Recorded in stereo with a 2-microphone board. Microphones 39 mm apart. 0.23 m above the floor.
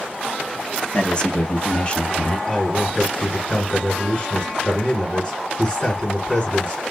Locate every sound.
0.9 s a man speaking: 25° left (ahead or behind), 1.3 m; by 2.4 s 30° left (ahead or behind), 1.4 m
2.5 s a man speaking: 25° left (ahead or behind), 2.5 m